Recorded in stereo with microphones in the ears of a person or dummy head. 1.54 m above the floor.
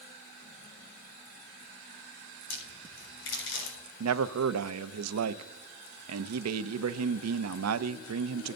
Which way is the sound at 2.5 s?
85° left.